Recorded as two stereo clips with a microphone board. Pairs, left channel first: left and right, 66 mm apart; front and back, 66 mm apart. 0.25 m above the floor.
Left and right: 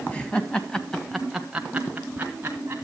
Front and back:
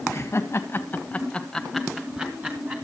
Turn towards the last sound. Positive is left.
turn(degrees=-135)